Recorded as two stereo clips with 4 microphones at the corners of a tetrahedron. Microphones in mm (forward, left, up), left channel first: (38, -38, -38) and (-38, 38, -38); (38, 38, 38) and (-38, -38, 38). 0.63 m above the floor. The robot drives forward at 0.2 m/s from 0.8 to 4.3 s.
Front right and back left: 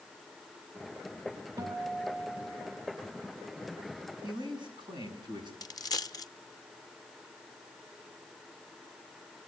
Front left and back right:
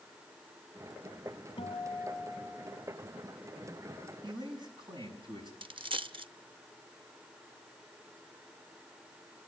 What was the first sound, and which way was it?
A guitar, 85° left.